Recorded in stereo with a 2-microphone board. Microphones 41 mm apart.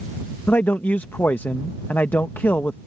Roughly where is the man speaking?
Left.